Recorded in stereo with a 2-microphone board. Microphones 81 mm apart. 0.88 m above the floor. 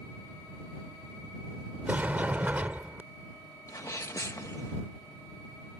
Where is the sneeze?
45° left (ahead or behind).